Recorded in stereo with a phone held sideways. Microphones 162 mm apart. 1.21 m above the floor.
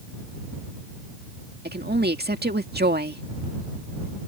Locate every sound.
1.6 s a woman speaking: 85° right